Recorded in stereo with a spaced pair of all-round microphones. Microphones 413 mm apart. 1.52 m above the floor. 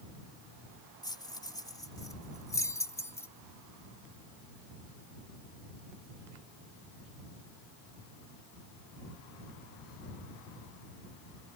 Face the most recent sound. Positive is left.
turn(degrees=5)  # may be behind; listen again after turning